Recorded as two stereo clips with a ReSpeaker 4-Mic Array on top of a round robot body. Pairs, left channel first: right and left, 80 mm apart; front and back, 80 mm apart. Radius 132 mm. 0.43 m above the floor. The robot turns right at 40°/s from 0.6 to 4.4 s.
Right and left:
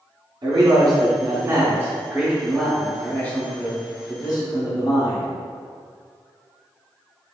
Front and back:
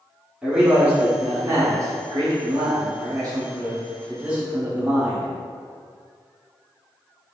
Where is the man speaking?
100° left, 1.4 m; by 5.3 s 105° right, 1.4 m.